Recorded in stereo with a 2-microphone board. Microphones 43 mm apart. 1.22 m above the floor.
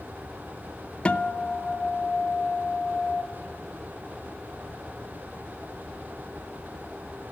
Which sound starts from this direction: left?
A guitar, at 1.1 s.